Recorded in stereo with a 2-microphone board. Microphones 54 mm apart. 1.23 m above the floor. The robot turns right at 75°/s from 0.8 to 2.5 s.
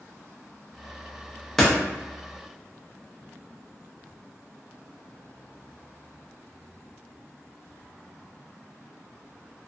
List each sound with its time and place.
1.6 s a door slam: 10° left (ahead or behind), 0.6 m; by 1.7 s centre (ahead or behind), 0.6 m